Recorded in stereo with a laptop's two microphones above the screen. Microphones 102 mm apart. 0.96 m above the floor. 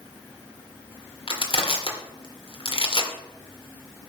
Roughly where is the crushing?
Left.